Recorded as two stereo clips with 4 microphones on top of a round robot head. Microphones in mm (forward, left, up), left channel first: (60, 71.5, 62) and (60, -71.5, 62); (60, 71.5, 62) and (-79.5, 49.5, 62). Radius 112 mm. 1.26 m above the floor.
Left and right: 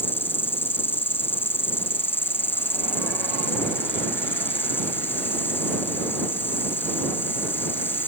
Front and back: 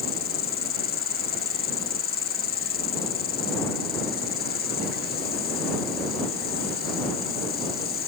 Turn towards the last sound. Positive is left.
turn(degrees=15)